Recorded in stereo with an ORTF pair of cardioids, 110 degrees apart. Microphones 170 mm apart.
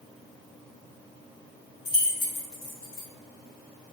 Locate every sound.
1.9 s keys jangling: 60° left, 0.9 m